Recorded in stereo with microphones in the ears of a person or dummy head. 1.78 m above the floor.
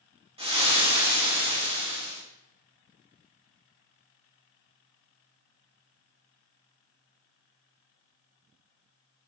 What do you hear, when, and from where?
0.4 s frying: 25° right (ahead or behind), 1.6 m